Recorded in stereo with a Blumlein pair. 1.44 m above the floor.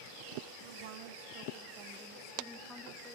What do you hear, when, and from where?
0.6 s a woman speaking: 55° right, 3.5 m; by 3.2 s 15° left, 3 m